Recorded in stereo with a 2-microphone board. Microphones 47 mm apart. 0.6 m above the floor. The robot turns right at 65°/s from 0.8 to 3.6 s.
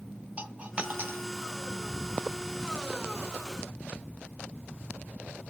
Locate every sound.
0.4 s a dropped coin: 25° right (ahead or behind), 0.5 m; by 1.2 s 55° right (ahead or behind), 0.5 m